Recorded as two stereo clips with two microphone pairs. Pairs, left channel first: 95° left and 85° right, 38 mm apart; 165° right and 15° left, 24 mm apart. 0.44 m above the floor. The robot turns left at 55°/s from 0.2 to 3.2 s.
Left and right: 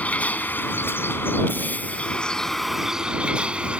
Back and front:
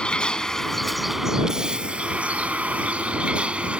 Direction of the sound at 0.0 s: 145° left.